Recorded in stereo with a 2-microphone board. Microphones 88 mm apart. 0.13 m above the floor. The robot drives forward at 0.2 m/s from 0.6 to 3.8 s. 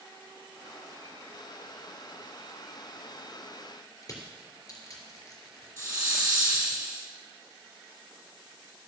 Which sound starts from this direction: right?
A hiss, at 5.8 s.